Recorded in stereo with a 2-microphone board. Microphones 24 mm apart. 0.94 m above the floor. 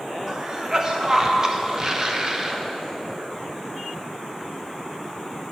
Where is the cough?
25° right (ahead or behind), 0.8 m.